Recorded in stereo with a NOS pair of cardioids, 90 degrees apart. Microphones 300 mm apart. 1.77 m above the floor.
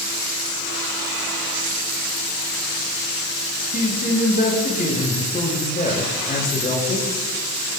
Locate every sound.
3.7 s a man speaking: 30° left, 6.5 m